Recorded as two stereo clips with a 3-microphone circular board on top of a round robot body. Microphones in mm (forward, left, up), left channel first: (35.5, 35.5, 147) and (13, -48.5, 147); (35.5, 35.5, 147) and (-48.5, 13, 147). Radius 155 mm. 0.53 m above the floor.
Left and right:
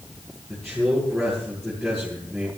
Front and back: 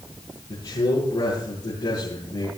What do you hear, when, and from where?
0.5 s a man speaking: 15° right, 9.5 m